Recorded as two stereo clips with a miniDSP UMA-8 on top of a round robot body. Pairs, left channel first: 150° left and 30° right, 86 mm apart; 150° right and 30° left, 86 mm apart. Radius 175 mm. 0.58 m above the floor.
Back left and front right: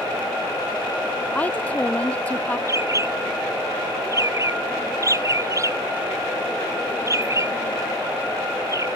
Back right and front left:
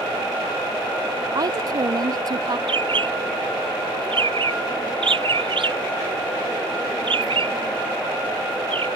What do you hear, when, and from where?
1.4 s a woman speaking: 75° left
2.7 s a bird: 20° left